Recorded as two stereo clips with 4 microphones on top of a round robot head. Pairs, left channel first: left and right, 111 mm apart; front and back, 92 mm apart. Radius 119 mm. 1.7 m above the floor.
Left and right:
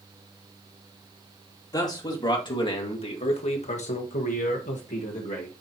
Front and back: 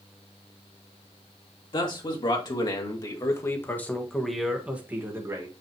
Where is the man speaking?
35° left, 2.5 m; by 5.5 s 130° left, 1.6 m.